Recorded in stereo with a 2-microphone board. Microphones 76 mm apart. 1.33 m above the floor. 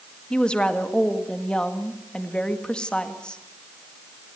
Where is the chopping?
I don't hear chopping.